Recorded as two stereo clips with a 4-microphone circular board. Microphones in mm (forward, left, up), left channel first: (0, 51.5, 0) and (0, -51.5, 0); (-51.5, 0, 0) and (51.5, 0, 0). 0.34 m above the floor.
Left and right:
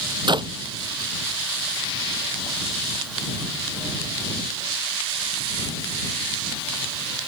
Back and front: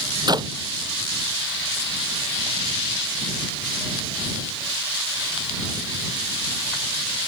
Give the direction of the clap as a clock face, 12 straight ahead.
2 o'clock.